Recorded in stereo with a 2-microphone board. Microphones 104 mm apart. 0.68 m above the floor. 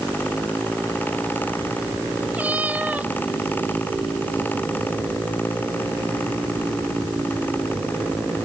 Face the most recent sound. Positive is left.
turn(degrees=-15)  # may be behind; listen again after turning